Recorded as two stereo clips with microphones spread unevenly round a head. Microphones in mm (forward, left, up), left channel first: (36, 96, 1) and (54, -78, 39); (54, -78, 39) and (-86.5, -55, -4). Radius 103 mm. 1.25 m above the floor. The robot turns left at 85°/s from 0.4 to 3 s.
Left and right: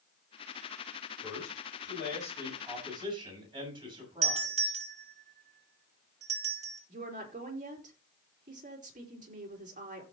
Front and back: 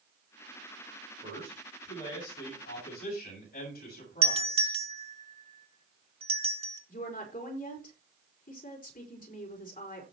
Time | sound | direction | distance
1.2 | a man speaking | 130° left | 7 m
4.2 | a doorbell | 145° right | 2.5 m
6.9 | a woman speaking | 35° right | 4 m